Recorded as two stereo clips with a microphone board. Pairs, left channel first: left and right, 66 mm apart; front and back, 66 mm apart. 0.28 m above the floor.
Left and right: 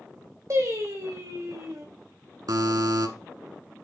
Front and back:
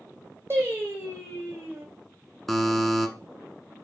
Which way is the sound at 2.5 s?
90° right.